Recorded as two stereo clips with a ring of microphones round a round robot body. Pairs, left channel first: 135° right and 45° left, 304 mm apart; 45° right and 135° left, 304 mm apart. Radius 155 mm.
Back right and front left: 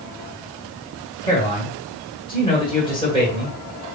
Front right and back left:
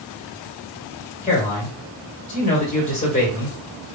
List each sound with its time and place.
1.2 s a man speaking: 80° right, 1.6 m